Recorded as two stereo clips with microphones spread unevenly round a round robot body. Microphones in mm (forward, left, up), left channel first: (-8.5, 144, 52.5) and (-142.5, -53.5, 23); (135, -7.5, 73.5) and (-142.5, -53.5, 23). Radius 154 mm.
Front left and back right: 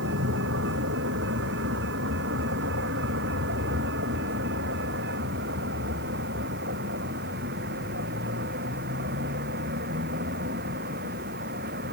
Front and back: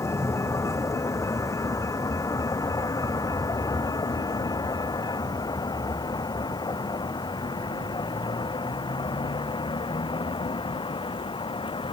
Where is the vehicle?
70° right; by 11.9 s 65° right.